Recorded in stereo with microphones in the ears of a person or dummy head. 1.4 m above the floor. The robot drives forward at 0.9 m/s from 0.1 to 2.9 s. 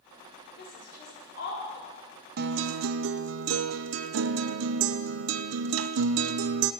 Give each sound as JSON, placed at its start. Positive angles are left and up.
{"t": 0.6, "sound": "a woman speaking", "side_deg": 65, "distance_m": 5.5}
{"t": 2.4, "sound": "a guitar", "side_deg": -60, "distance_m": 0.6}